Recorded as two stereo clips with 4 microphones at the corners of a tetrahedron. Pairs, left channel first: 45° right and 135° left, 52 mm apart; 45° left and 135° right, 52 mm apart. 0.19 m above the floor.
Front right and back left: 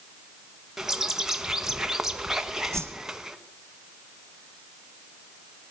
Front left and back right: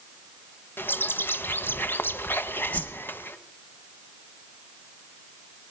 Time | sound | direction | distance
0.8 | a bird | 60° left | 1.0 m
2.7 | a whoosh | 100° left | 3 m